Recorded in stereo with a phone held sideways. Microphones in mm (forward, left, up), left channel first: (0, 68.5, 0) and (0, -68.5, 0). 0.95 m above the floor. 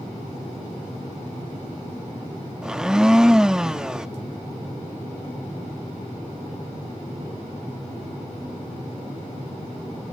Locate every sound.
2.6 s a blender: 5° right (ahead or behind), 0.6 m